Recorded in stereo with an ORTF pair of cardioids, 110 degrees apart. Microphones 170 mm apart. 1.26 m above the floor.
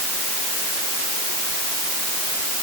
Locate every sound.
Only background noise.